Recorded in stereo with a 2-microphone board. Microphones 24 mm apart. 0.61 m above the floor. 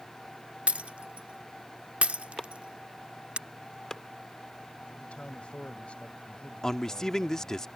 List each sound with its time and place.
0.7 s breaking glass: 65° right (ahead or behind)
2.4 s chopping: 25° left (ahead or behind)
5.0 s a man speaking: 55° left (ahead or behind)
6.6 s a man speaking: 25° left (ahead or behind)